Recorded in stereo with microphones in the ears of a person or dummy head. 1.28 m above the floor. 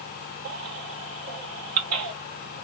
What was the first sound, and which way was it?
A baby crying, 75° right (ahead or behind).